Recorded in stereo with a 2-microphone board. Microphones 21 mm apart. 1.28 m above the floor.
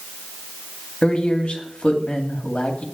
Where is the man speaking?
60° left (ahead or behind), 2.5 m.